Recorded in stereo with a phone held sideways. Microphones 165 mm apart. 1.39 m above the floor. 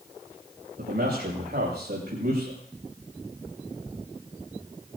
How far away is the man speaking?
About 6 m.